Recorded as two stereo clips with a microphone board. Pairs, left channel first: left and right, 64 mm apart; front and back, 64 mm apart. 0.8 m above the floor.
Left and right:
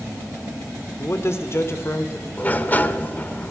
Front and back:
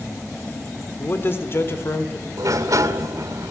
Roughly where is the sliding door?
Behind left.